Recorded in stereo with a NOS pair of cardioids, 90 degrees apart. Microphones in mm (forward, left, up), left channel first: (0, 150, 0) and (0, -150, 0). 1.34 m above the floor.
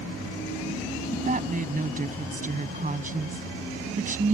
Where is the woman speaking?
25° right.